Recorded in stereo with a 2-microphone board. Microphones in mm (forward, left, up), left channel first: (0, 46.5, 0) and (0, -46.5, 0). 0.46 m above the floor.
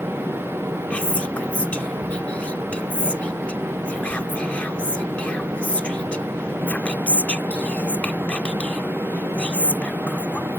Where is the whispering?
15° left (ahead or behind).